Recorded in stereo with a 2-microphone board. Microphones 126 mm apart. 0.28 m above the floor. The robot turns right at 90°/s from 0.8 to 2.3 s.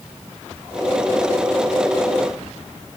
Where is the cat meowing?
I don't hear a cat meowing.